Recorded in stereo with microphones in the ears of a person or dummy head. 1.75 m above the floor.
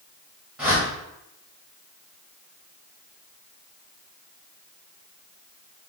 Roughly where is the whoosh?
Centre.